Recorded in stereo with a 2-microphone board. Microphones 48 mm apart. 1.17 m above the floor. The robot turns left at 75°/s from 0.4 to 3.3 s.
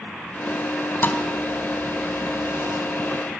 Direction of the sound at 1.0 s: 45° left (ahead or behind).